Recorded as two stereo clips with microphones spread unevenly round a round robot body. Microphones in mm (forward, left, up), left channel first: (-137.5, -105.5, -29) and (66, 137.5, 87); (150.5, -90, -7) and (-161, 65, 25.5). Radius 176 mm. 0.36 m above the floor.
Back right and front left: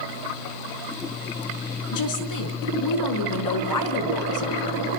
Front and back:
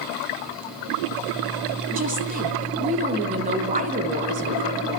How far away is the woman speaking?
About 3.5 m.